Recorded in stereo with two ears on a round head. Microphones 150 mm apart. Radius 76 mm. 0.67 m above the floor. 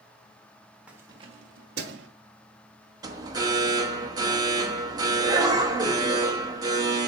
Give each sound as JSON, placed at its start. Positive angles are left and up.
{"t": 0.9, "sound": "keys jangling", "side_deg": -10, "distance_m": 1.1}
{"t": 3.0, "sound": "an alarm", "side_deg": -20, "distance_m": 1.1}